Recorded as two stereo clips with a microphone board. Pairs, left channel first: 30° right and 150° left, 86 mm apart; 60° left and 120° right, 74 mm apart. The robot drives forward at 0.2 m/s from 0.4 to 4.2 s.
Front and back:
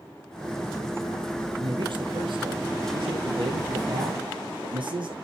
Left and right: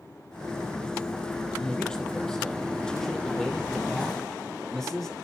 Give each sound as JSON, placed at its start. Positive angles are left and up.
{"t": 1.6, "sound": "a man speaking", "azimuth_deg": 140, "distance_m": 3.5}